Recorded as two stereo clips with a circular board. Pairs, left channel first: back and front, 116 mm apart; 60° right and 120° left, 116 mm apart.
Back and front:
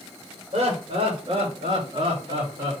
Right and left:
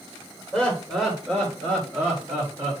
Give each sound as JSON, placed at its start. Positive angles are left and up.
{"t": 0.5, "sound": "laughter", "azimuth_deg": 30, "distance_m": 3.0}